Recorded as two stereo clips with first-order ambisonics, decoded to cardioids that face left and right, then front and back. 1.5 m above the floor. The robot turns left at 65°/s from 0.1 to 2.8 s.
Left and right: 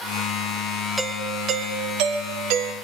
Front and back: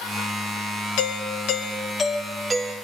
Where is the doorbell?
5° right, 1.5 m; by 2.7 s 120° right, 1.5 m.